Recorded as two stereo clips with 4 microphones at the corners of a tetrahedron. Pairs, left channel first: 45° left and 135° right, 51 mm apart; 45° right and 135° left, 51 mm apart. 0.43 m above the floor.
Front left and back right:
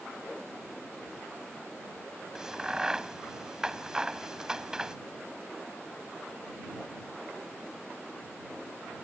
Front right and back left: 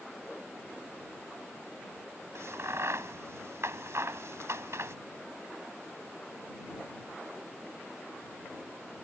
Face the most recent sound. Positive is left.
turn(degrees=150)